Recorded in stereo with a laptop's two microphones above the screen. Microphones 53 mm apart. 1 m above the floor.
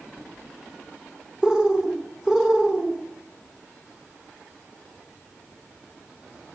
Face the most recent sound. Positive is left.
turn(degrees=-10)  # may be behind; listen again after turning